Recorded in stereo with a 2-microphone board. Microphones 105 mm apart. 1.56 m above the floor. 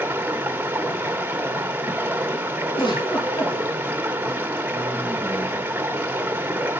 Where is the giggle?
45° left (ahead or behind), 3.5 m.